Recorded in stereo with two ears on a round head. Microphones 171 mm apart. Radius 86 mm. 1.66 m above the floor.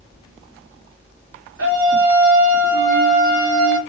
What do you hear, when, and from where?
1.6 s a scream: 85° right, 2.5 m